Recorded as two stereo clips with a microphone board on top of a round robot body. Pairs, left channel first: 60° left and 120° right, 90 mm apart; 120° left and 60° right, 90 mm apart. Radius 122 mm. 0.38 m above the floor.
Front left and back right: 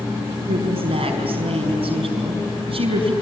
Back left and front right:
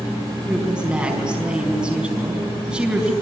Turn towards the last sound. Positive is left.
turn(degrees=-140)